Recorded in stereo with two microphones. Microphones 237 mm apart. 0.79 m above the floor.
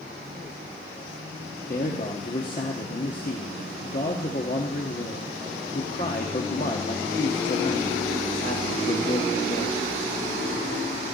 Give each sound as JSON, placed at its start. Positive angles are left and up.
{"t": 1.7, "sound": "a man speaking", "side_deg": 40, "distance_m": 1.2}